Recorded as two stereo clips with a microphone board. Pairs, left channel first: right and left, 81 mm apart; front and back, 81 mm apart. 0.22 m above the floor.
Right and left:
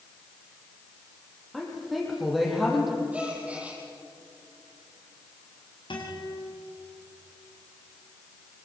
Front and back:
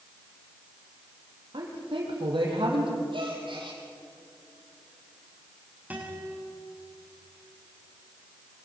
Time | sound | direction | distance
1.5 | a woman speaking | straight behind | 6.5 m
3.1 | a gasp | 165° left | 5.5 m
5.9 | a guitar | 110° right | 7.5 m